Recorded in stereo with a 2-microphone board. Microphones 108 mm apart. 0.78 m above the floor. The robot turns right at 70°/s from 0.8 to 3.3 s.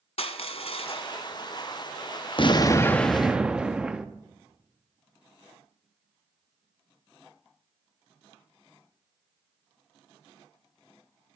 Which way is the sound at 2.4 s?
125° left.